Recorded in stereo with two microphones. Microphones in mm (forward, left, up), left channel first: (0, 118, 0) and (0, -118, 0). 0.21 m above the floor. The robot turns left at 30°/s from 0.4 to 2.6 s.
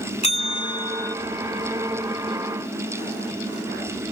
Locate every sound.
0.2 s a bell: 25° left (ahead or behind); by 1.1 s 10° left (ahead or behind)